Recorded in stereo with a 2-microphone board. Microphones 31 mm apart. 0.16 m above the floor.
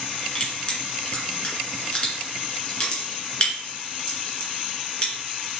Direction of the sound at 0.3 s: 25° left (ahead or behind).